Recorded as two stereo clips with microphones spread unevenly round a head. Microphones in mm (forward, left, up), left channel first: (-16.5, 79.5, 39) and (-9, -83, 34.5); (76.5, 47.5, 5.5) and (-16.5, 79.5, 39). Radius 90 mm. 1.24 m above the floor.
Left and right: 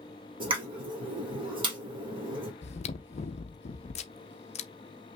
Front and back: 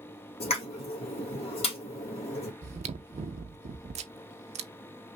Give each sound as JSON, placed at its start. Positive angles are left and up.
{"t": 0.4, "sound": "a pop", "azimuth_deg": -25, "distance_m": 1.7}
{"t": 2.6, "sound": "chewing", "azimuth_deg": 145, "distance_m": 0.6}